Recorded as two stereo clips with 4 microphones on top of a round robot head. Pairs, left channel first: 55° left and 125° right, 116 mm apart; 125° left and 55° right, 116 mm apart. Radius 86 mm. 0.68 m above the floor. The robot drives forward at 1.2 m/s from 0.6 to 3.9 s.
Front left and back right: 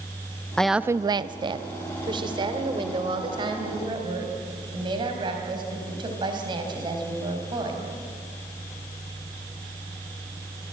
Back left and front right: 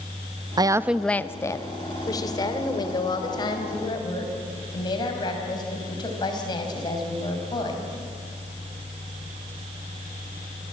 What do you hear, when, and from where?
0.6 s a woman speaking: 25° right, 0.5 m; by 7.9 s straight behind, 3.5 m